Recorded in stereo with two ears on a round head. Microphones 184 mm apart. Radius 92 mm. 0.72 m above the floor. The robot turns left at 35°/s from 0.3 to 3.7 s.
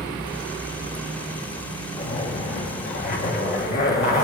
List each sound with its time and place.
2.0 s a zipper: 150° left, 1.5 m; by 4.2 s 85° left, 1.5 m